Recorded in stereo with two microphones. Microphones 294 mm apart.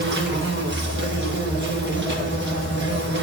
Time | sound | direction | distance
0.0 | an insect | 40° right (ahead or behind) | 1.4 m